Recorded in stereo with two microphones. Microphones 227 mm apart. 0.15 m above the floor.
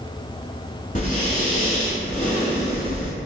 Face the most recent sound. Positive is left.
turn(degrees=40)  # may be behind; listen again after turning